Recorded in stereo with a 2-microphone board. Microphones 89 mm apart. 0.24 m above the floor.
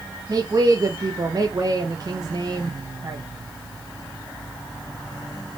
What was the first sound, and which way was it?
A woman speaking, 45° right (ahead or behind).